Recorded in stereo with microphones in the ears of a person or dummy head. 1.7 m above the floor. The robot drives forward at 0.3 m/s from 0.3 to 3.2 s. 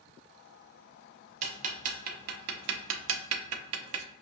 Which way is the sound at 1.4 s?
35° right (ahead or behind).